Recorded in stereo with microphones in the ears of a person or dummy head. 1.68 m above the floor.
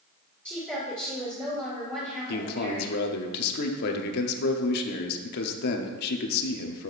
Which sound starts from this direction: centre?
A woman speaking, at 0.5 s.